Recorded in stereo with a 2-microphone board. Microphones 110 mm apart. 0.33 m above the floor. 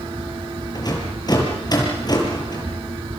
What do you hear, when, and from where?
0.8 s a rattle: 40° left (ahead or behind), 6.5 m